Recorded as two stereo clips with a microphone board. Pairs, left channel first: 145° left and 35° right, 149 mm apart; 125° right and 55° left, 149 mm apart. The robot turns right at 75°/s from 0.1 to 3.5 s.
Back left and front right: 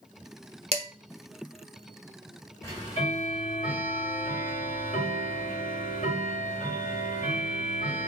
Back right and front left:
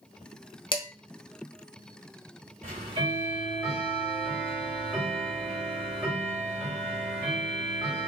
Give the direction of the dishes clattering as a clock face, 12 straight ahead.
2 o'clock.